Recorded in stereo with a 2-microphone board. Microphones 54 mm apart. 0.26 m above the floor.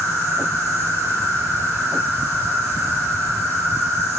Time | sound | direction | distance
0.0 | an insect | 75° right (ahead or behind) | 4 m